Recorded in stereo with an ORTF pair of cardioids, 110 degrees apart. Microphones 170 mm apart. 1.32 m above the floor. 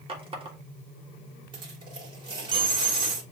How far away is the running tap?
About 1.2 m.